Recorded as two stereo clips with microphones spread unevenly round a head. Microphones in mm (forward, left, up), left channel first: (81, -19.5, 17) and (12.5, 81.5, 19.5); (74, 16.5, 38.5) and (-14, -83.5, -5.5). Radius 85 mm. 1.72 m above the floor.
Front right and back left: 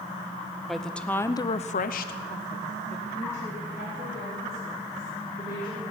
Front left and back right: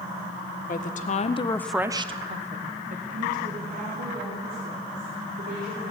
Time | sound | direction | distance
0.7 | a woman speaking | 35° left | 1.6 m